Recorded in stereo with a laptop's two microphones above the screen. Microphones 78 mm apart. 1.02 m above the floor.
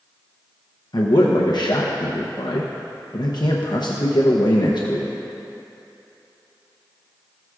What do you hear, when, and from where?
0.9 s a man speaking: 70° left (ahead or behind), 0.8 m